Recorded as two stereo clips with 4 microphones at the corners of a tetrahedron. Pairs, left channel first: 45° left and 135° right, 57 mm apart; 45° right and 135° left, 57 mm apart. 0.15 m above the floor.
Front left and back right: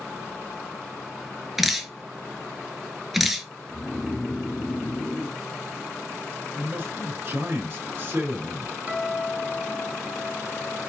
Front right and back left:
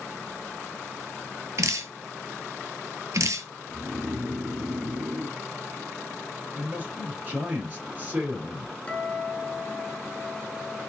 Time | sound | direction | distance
1.6 | dripping | 140° left | 0.8 m
3.7 | snoring | 110° left | 1.0 m
6.5 | a man speaking | 170° right | 3 m
8.9 | a guitar | 90° right | 1.5 m